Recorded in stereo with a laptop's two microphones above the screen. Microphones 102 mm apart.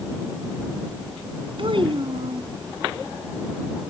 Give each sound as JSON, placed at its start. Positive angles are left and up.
{"t": 1.6, "sound": "a child speaking", "side_deg": -55}